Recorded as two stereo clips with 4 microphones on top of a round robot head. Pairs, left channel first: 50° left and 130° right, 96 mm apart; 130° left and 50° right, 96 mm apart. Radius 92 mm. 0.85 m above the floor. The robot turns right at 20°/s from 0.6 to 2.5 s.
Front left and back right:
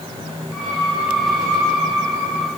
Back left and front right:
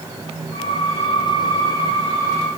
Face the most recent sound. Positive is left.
No sound to turn to.